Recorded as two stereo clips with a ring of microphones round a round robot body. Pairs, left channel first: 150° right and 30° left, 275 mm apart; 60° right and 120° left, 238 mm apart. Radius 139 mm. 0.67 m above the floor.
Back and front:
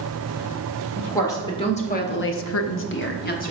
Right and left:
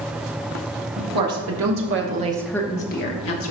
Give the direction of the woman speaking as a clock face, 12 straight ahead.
8 o'clock.